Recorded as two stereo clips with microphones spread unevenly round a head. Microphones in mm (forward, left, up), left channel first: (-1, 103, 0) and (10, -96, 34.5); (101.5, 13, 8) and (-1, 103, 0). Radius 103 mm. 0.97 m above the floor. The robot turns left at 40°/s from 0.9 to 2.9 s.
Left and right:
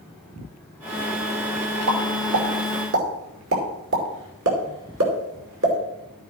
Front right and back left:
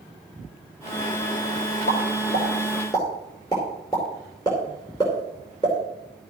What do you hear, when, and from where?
1.9 s a pop: 75° right, 2.5 m; by 5.8 s 115° right, 2.5 m